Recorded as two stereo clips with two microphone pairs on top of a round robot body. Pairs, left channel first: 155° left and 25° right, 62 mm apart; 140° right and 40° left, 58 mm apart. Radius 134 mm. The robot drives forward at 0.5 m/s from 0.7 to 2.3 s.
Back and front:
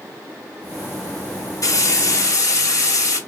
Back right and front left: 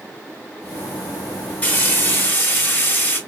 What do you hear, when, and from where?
1.6 s frying: 170° left, 1.0 m